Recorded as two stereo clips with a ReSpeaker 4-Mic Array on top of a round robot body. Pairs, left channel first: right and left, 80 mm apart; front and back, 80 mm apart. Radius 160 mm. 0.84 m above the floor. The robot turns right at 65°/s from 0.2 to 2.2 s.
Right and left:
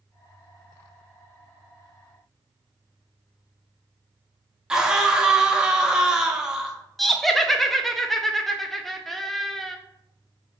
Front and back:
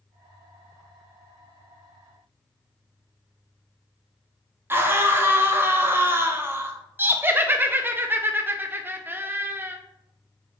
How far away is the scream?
About 0.9 m.